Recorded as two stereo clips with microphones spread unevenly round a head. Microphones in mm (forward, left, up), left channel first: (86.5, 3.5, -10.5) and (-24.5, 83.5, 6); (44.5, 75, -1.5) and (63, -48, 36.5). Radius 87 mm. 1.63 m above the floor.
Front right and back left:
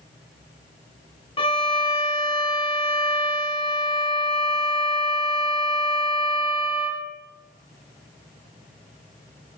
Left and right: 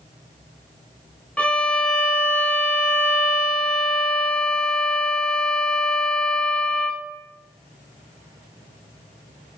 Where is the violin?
15° left, 1.3 m.